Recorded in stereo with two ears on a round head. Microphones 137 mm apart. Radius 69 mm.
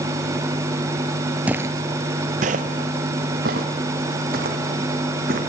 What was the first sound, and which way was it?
Footsteps, 10° right (ahead or behind).